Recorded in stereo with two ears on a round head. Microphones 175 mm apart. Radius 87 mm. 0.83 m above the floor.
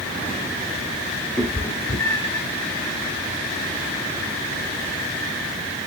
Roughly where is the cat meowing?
Centre.